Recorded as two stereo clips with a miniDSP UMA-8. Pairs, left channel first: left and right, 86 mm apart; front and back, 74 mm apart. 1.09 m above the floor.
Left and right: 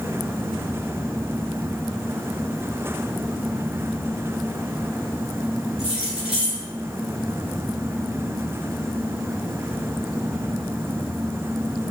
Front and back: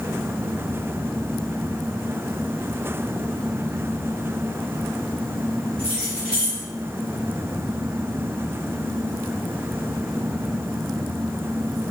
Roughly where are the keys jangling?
Left.